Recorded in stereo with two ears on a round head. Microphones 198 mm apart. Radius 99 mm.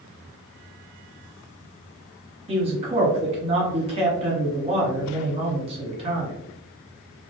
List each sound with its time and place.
2.5 s a man speaking: 25° right (ahead or behind), 1.1 m